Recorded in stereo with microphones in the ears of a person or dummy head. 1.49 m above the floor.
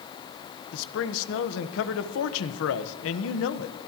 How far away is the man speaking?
About 1.2 m.